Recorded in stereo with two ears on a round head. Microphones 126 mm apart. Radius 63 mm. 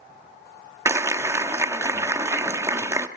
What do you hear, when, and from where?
0.8 s a clap: 20° right (ahead or behind), 0.9 m